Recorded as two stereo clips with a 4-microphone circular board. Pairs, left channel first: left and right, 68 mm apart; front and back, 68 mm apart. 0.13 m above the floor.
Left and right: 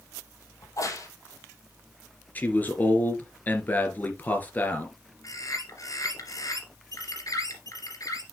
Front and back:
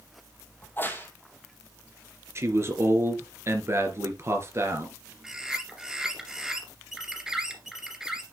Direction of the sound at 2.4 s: 150° left.